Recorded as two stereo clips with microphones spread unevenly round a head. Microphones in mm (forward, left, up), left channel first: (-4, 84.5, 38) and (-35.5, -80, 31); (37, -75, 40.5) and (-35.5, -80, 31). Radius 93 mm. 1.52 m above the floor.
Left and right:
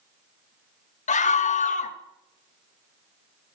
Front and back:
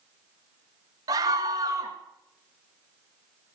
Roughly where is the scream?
Behind left.